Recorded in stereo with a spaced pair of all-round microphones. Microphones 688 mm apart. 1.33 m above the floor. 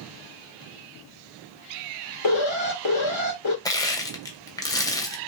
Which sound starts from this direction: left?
An alarm, at 2.2 s.